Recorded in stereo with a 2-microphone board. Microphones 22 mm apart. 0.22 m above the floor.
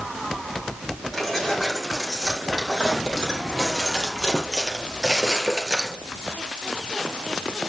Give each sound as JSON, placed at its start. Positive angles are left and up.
{"t": 1.1, "sound": "keys jangling", "side_deg": 0, "distance_m": 6.5}